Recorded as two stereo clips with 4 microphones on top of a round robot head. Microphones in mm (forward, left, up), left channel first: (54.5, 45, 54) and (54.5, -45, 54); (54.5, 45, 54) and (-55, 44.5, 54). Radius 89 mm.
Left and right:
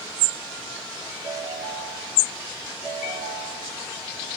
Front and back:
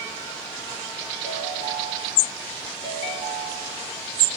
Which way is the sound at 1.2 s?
140° left.